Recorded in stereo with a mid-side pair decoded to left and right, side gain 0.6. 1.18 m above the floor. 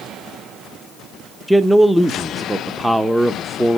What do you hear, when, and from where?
1.5 s a man speaking: 5° right, 0.7 m